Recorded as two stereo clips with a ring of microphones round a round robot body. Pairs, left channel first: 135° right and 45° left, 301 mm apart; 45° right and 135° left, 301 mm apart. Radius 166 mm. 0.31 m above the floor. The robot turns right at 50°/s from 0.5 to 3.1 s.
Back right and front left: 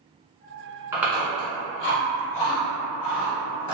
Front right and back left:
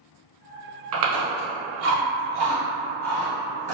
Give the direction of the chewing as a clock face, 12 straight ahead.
8 o'clock.